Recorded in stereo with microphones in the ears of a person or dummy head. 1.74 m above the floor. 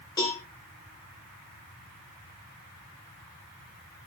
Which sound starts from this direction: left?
A cowbell, at 0.2 s.